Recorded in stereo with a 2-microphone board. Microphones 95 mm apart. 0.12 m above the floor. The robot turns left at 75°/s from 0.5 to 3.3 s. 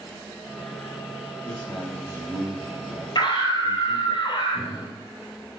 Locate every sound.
1.4 s a man speaking: 20° left, 3.5 m; by 4.2 s 120° right, 3.5 m
3.1 s a scream: 45° left (ahead or behind), 2 m; by 4.9 s 55° left (ahead or behind), 2 m